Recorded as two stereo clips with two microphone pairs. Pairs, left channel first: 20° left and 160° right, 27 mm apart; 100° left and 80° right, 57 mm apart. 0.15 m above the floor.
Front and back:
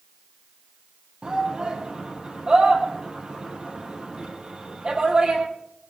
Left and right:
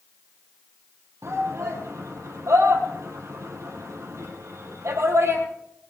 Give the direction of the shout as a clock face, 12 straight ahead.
3 o'clock.